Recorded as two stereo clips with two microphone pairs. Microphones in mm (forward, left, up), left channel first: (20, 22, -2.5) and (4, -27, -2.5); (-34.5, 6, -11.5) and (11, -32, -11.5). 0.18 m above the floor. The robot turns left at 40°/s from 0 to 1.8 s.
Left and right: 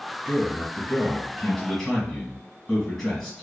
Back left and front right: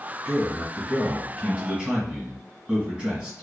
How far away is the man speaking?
About 1.5 m.